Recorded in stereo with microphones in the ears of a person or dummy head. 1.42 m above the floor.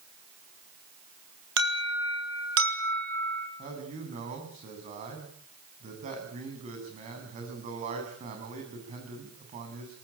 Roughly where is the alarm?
Right.